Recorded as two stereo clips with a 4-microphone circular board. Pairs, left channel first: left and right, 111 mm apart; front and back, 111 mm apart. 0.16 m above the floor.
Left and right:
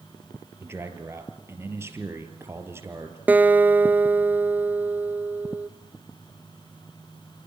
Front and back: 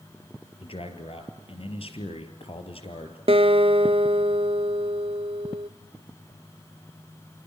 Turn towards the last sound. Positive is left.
turn(degrees=-165)